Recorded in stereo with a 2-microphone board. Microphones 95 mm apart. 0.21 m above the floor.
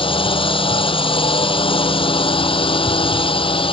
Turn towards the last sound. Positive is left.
turn(degrees=70)  # may be behind; listen again after turning